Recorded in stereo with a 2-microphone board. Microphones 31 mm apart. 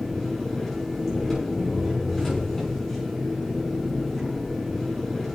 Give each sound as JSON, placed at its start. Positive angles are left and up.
{"t": 0.0, "sound": "an engine running", "side_deg": 0, "distance_m": 6.5}